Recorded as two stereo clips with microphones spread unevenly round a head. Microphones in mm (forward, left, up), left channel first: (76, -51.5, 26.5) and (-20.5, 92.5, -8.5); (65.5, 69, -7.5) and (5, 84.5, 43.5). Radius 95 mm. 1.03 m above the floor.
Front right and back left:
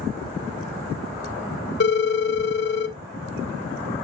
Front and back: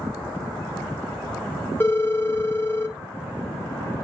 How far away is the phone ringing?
About 0.8 m.